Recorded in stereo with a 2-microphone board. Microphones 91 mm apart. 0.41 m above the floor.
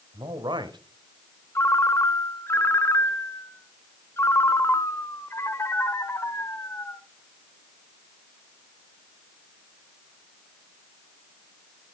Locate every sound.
0.1 s a man speaking: 55° right (ahead or behind), 1.4 m
1.6 s a ringtone: 30° left (ahead or behind), 0.8 m